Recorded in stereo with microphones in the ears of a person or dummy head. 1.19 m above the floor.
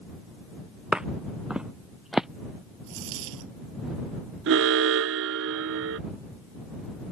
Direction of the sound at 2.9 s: 70° right (ahead or behind).